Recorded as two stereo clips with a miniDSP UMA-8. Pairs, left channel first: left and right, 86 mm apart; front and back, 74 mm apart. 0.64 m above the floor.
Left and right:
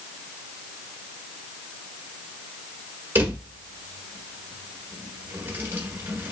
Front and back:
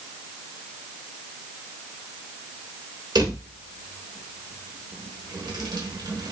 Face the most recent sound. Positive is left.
turn(degrees=-155)